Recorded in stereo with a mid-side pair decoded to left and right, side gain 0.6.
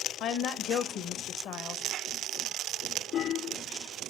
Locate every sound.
0.2 s a woman speaking: 60° left, 0.8 m